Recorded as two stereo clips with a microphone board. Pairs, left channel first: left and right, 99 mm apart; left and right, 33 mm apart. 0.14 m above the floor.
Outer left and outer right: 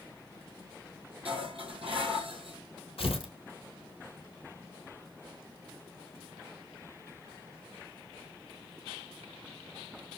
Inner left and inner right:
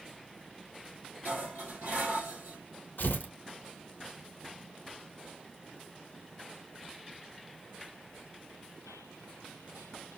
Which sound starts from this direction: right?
Dishes clattering, at 1.2 s.